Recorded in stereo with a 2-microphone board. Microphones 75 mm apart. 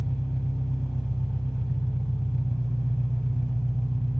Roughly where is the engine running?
Centre.